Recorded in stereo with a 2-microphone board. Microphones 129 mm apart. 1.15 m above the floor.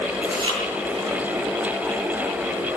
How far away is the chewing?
About 8.5 m.